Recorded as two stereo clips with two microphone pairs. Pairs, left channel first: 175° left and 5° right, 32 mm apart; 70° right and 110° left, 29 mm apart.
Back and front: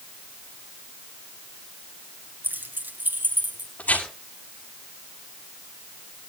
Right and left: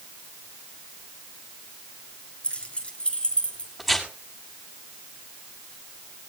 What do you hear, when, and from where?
2.4 s keys jangling: 15° right, 6.5 m; by 3.7 s 10° right, 6.5 m
3.8 s tearing paper: 160° right, 6 m